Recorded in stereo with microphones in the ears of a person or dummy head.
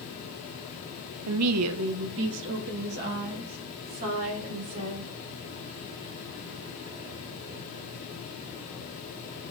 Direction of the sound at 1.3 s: 75° right (ahead or behind).